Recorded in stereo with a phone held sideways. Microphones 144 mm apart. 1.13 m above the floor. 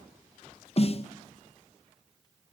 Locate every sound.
0.8 s a snare drum: 45° left (ahead or behind), 0.6 m